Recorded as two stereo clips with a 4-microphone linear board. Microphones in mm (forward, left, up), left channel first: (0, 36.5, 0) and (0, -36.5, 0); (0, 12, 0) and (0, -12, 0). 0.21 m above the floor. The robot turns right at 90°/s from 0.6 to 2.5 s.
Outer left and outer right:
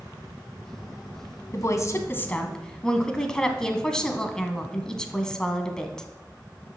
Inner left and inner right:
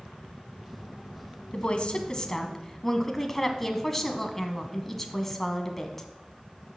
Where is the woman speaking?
80° left, 1.5 m; by 6.1 s 165° left, 1.5 m.